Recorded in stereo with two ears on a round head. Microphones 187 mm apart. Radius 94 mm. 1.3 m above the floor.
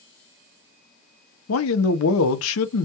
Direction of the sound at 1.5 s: 75° left (ahead or behind).